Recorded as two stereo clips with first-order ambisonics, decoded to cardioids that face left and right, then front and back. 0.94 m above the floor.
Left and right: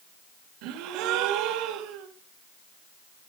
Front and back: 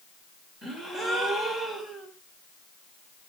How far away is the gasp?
About 1.5 m.